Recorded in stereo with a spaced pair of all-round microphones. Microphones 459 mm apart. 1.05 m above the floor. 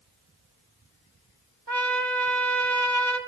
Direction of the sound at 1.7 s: 60° right (ahead or behind).